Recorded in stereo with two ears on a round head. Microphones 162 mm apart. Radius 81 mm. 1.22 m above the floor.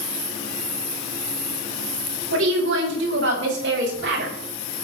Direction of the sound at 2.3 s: 80° right.